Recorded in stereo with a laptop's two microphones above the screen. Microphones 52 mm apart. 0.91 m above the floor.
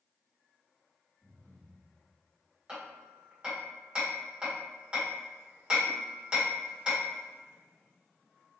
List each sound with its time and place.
1.2 s breathing: 30° left (ahead or behind), 2 m
2.7 s hammering: 20° right (ahead or behind), 1.8 m